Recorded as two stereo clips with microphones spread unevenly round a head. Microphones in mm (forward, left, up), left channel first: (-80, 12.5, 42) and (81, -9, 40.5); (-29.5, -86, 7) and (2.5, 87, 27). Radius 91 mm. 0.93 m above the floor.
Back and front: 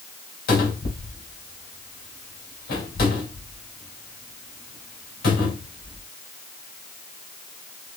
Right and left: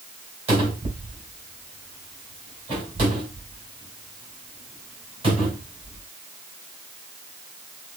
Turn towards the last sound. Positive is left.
turn(degrees=140)